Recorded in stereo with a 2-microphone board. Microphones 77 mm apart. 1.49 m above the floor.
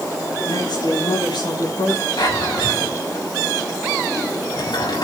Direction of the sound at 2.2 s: 70° left (ahead or behind).